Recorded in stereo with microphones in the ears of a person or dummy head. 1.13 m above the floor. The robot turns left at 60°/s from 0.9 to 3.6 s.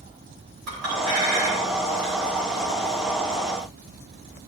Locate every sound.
0.7 s a clink: 85° right, 3.5 m; by 2.1 s 20° right (ahead or behind), 3.5 m